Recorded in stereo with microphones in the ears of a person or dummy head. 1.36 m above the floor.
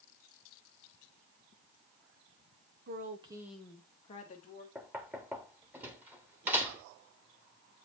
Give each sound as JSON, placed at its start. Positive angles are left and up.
{"t": 2.9, "sound": "a woman speaking", "side_deg": -50, "distance_m": 1.2}
{"t": 4.8, "sound": "knocking", "side_deg": -10, "distance_m": 1.4}